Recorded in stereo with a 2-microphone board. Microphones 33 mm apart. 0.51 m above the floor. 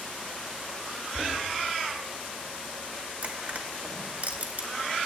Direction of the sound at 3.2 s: 55° right (ahead or behind).